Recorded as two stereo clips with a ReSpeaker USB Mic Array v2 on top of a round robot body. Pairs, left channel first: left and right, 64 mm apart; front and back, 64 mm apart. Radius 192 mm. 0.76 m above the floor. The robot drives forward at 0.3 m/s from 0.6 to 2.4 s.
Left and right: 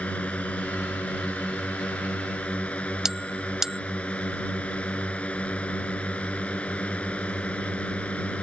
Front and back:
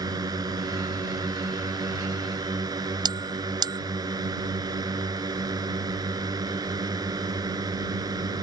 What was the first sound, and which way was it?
A drone, 160° left.